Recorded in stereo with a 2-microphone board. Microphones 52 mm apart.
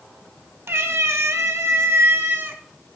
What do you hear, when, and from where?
0.7 s a cat meowing: 55° right (ahead or behind), 1.0 m; by 2.6 s 45° right (ahead or behind), 1.4 m